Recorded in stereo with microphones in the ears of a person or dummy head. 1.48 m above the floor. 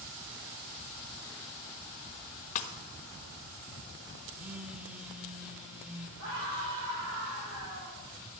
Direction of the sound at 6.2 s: 75° right (ahead or behind).